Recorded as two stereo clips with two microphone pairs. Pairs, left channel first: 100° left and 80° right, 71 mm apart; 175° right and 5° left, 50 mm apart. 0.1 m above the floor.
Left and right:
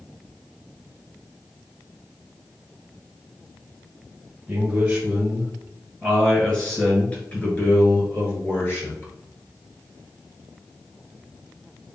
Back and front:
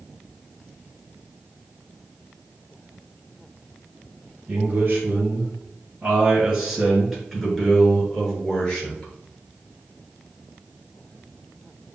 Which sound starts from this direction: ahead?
A man speaking, at 4.5 s.